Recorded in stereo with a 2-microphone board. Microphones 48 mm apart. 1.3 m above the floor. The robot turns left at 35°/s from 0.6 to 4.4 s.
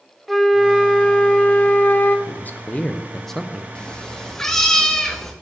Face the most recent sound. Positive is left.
turn(degrees=10)  # may be behind; listen again after turning